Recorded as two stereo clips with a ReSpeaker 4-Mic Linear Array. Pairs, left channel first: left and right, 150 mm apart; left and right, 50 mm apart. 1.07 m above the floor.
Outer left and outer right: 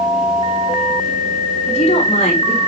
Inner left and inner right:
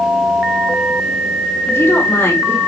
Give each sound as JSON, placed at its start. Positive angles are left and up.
{"t": 1.7, "sound": "a woman speaking", "side_deg": 45, "distance_m": 4.0}